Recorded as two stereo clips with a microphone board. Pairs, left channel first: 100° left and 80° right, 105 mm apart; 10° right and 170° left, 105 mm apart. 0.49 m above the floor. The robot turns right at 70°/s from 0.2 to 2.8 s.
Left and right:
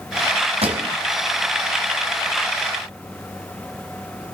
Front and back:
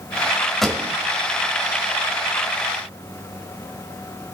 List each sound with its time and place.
0.6 s a pop: 100° right, 1.8 m; by 0.8 s 85° right, 1.8 m